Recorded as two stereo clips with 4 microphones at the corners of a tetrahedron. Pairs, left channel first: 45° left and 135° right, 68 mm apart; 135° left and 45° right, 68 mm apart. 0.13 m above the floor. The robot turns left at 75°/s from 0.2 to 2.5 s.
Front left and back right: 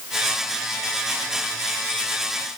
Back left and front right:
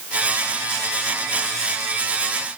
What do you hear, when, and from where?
Only background noise.